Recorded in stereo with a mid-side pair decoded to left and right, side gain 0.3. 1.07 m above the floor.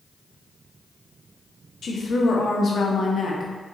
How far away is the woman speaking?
About 1.2 m.